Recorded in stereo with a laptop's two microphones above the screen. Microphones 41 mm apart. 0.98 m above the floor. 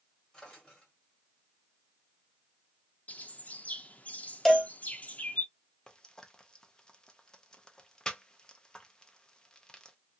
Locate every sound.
0.3 s a drawer: 20° left (ahead or behind), 1.5 m
3.1 s a bird: 35° left (ahead or behind), 0.6 m
4.5 s a cowbell: 5° left (ahead or behind), 0.7 m
5.9 s frying: 20° left (ahead or behind), 0.6 m